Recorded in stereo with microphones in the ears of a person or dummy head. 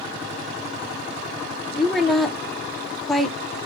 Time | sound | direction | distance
1.8 | a woman speaking | 5° left (ahead or behind) | 0.5 m